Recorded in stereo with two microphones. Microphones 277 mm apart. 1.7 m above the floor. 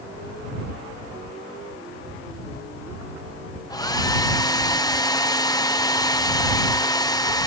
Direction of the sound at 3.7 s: 15° left (ahead or behind).